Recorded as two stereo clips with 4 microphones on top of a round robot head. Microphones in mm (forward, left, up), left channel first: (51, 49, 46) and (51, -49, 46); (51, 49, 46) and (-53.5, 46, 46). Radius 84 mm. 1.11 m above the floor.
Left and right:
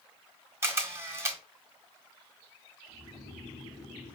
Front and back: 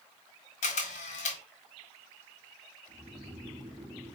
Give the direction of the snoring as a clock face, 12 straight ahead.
8 o'clock.